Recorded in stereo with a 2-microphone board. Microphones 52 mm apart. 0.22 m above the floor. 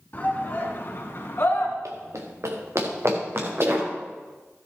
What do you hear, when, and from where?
0.1 s a shout: 40° left (ahead or behind), 2.5 m; by 1.8 s 50° left (ahead or behind), 2.5 m
1.9 s running footsteps: 80° right, 2 m; by 3.9 s 50° right (ahead or behind), 4.5 m